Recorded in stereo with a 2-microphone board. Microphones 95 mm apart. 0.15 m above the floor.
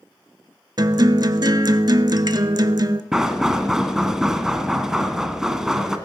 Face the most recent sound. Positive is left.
turn(degrees=-5)  # may be behind; listen again after turning